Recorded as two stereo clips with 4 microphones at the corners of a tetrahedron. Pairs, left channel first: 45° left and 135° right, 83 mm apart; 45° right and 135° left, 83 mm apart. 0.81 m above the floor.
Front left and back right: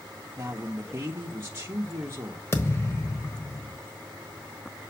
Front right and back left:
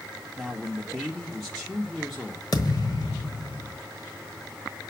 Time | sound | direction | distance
0.4 | a man speaking | 140° right | 0.9 m
2.5 | a thud | 10° right | 1.1 m